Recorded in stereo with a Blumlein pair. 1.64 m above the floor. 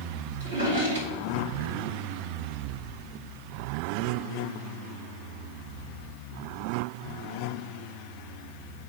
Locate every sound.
0.4 s a drawer: 65° right, 2.5 m